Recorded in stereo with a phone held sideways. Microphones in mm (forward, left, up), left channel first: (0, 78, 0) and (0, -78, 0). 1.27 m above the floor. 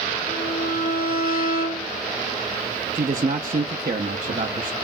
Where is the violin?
65° left (ahead or behind), 1.6 m.